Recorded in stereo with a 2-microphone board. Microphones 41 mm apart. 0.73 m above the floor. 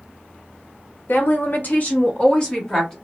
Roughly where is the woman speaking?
Left.